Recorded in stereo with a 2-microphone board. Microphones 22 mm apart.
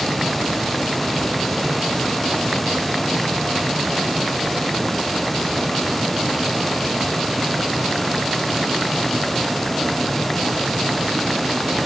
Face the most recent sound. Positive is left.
No sound to turn to.